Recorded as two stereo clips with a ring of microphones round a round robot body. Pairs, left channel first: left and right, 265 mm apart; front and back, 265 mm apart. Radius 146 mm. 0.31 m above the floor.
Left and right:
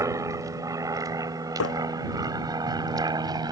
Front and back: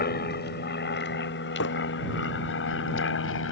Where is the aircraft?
20° right.